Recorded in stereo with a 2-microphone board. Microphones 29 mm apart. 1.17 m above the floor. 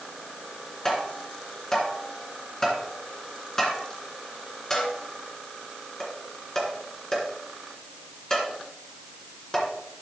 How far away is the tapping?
About 2.5 m.